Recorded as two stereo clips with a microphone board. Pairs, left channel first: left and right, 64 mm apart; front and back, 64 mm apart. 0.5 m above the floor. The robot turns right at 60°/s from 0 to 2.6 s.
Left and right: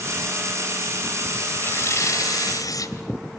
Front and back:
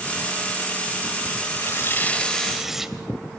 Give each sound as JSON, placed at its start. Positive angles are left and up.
{"t": 1.6, "sound": "tearing paper", "azimuth_deg": 35, "distance_m": 1.8}